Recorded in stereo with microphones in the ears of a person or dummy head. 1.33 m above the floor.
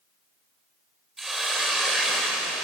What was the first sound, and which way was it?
A hiss, centre (ahead or behind).